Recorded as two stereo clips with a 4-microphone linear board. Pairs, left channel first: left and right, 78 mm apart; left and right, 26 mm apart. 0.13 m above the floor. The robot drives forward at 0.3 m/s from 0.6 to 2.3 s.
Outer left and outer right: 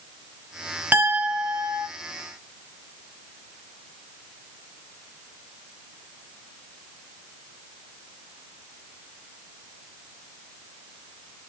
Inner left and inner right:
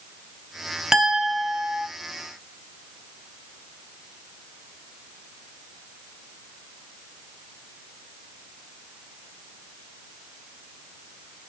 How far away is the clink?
About 0.7 m.